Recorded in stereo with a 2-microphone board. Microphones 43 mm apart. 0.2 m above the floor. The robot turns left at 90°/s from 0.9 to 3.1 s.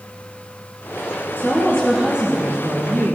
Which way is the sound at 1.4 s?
50° left.